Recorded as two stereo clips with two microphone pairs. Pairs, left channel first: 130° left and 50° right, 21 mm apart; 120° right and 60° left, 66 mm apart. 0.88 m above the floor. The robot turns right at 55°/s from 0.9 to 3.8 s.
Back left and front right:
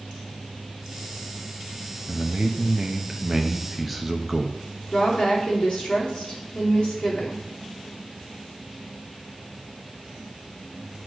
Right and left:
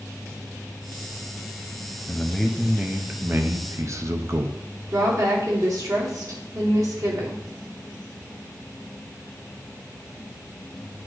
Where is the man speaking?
55° right, 0.8 m; by 4.6 s 40° left, 0.8 m.